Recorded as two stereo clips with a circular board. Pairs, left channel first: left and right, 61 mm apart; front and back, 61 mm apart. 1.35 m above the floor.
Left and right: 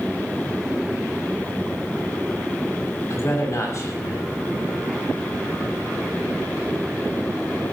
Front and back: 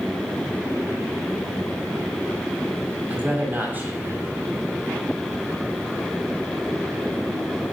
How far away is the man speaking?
About 7 m.